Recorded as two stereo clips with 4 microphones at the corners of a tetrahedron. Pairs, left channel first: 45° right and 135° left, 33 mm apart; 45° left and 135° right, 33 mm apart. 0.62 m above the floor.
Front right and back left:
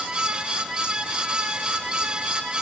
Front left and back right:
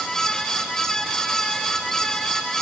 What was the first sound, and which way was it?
Only background noise.